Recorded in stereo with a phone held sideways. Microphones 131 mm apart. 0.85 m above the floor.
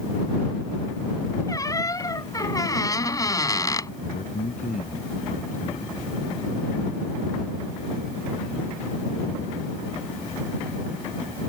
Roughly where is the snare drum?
I don't hear a snare drum.